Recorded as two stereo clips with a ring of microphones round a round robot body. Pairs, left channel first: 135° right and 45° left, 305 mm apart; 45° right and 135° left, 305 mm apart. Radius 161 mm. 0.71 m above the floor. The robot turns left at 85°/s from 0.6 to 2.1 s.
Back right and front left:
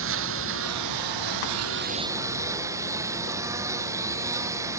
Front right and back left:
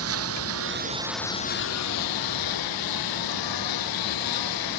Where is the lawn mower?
90° left; by 4.8 s 35° right.